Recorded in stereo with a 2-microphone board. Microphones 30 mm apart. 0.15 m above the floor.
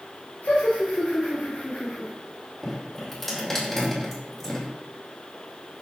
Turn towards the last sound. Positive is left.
turn(degrees=15)  # may be behind; listen again after turning